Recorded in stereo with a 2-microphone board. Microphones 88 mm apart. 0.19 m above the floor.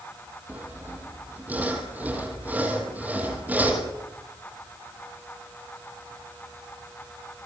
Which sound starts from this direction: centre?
Sawing, at 0.5 s.